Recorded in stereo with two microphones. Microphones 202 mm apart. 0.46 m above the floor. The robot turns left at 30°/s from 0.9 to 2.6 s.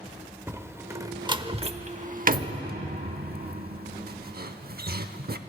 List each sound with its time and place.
0.5 s a door slam: 15° right (ahead or behind), 0.7 m; by 5.4 s 55° right (ahead or behind), 0.7 m